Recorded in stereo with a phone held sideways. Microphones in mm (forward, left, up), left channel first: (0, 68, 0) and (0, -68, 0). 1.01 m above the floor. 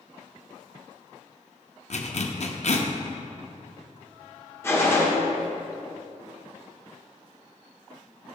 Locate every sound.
1.9 s a zipper: 55° left (ahead or behind), 0.6 m
4.6 s a gunshot: 20° left (ahead or behind), 1.1 m